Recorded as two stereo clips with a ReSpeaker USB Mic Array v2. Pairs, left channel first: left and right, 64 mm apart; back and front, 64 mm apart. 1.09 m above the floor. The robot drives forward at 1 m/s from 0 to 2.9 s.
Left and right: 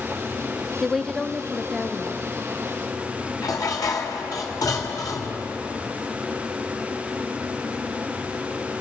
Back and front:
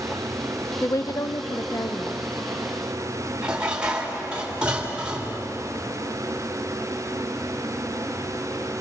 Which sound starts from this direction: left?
Dishes clattering, at 3.4 s.